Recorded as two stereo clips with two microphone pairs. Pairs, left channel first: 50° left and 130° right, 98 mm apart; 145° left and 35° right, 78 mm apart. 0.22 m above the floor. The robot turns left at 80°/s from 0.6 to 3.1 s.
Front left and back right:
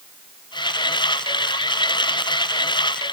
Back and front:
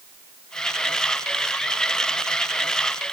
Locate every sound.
Only background noise.